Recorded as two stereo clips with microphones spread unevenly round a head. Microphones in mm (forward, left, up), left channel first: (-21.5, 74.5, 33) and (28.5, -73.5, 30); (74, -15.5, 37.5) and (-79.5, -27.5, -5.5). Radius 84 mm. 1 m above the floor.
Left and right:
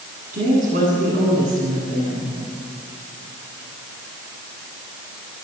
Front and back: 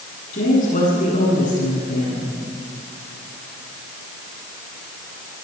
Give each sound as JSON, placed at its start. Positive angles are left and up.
{"t": 0.3, "sound": "a woman speaking", "azimuth_deg": -35, "distance_m": 10.0}